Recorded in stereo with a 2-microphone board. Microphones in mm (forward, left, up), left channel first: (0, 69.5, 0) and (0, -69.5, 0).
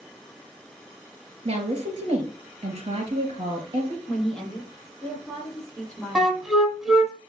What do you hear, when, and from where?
1.4 s a woman speaking: 45° right (ahead or behind), 4 m
4.1 s a woman speaking: 5° left (ahead or behind), 7 m
6.2 s a flute: centre (ahead or behind), 1.7 m